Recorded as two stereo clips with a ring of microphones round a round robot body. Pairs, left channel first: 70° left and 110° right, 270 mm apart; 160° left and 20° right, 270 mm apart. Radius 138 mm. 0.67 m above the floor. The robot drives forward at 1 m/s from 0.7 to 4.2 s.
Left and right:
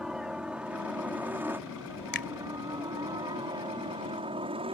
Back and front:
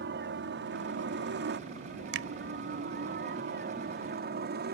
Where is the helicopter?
25° right; by 4.7 s 50° right.